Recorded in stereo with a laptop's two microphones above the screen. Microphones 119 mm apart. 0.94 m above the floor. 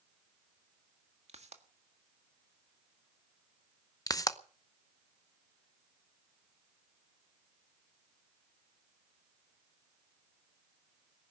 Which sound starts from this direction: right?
A pop, at 1.3 s.